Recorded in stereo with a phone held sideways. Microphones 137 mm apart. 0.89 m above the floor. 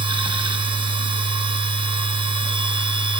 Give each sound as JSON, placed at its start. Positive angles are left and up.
{"t": 0.0, "sound": "a machine running", "side_deg": -35, "distance_m": 0.8}